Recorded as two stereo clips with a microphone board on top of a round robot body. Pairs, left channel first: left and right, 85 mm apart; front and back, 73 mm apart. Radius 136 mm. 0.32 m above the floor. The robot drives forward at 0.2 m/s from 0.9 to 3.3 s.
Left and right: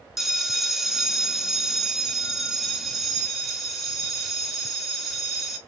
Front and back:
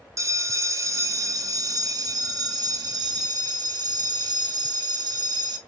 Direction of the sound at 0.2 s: 175° right.